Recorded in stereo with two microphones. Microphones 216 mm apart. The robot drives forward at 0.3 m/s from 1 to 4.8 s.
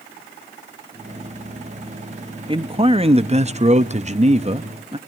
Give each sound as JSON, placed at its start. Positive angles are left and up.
{"t": 2.5, "sound": "a man speaking", "side_deg": -25, "distance_m": 0.6}